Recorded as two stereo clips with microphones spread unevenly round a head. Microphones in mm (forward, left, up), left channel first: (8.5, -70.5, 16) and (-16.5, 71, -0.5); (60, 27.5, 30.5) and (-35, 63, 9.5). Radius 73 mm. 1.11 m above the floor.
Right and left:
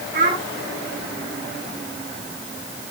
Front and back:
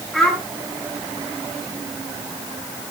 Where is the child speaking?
70° left, 8.5 m.